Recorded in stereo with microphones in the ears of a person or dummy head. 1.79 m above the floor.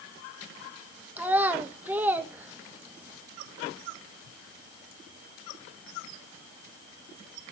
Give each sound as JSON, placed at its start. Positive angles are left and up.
{"t": 1.2, "sound": "a child speaking", "side_deg": -15, "distance_m": 1.6}